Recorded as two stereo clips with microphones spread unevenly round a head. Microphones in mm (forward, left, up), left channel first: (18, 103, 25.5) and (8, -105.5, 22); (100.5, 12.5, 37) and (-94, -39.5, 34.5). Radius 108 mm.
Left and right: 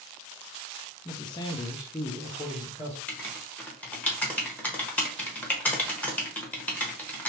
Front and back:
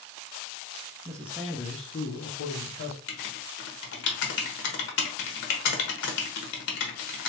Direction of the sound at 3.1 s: 5° left.